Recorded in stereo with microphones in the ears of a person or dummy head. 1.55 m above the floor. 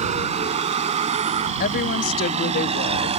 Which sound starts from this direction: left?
A woman speaking, at 1.6 s.